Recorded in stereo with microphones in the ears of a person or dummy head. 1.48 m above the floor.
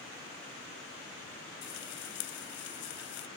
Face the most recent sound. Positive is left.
turn(degrees=60)  # may be behind; listen again after turning